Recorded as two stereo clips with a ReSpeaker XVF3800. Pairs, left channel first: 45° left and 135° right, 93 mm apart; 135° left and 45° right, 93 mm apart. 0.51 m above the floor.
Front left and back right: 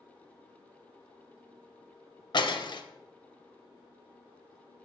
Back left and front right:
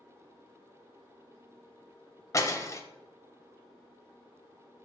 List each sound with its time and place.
2.3 s breaking glass: 80° left, 0.6 m